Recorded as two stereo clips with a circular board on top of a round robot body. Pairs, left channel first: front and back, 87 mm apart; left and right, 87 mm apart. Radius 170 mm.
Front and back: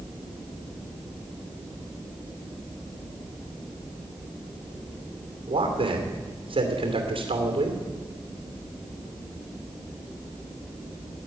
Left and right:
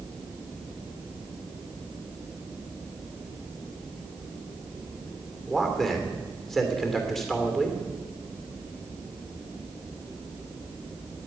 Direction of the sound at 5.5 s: 175° left.